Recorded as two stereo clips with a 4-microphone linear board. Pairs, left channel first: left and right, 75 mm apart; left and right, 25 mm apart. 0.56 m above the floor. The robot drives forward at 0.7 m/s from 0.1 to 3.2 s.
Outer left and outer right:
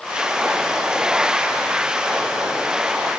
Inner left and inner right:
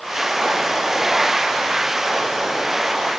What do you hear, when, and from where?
Only background noise.